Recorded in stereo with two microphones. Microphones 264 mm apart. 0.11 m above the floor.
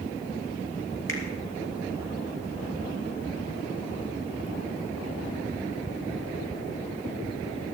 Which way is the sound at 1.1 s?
50° left (ahead or behind).